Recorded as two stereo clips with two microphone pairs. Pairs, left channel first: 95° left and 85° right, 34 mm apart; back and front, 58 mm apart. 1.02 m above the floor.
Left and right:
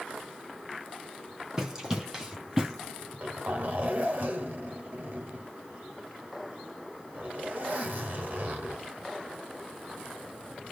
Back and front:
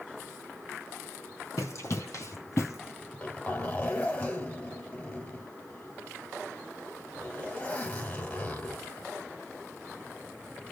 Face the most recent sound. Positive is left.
turn(degrees=-115)